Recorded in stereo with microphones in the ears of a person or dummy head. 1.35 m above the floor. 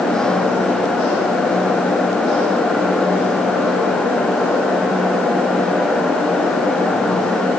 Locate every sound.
Only background noise.